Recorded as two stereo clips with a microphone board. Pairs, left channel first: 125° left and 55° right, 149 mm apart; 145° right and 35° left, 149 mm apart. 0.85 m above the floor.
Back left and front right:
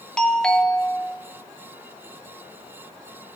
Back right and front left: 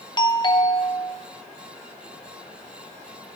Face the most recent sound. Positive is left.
turn(degrees=-155)